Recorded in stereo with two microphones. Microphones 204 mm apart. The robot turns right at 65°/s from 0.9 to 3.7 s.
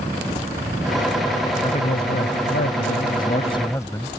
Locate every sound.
1.6 s a man speaking: 30° left; by 4.1 s 165° left